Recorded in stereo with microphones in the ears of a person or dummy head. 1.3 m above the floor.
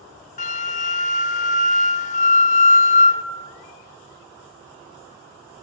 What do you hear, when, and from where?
0.4 s a flute: 40° left (ahead or behind), 0.8 m